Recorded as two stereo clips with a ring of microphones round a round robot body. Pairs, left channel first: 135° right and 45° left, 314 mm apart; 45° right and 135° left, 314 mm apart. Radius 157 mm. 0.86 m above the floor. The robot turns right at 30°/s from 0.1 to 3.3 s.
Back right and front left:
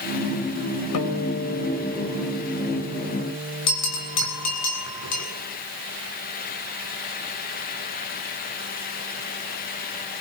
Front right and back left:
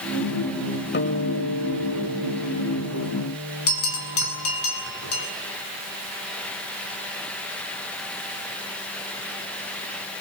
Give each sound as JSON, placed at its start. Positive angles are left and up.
{"t": 0.9, "sound": "a guitar", "azimuth_deg": -105, "distance_m": 3.5}
{"t": 3.7, "sound": "a bell", "azimuth_deg": -95, "distance_m": 7.0}